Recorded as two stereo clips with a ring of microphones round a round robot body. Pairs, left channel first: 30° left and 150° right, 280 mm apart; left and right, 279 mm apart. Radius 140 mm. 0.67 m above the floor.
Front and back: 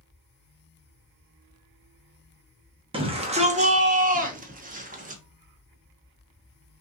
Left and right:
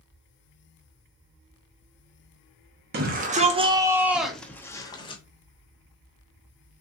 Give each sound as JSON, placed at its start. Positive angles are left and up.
{"t": 2.9, "sound": "a shout", "azimuth_deg": -95, "distance_m": 1.0}